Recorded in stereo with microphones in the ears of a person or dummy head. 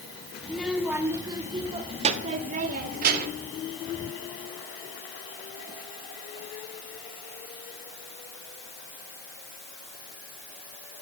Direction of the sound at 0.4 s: 5° left (ahead or behind).